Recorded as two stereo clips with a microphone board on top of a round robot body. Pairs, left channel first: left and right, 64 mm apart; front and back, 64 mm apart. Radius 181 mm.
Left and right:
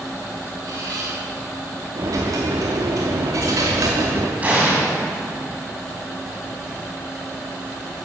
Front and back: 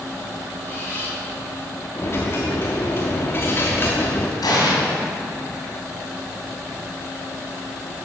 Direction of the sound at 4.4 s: 20° right.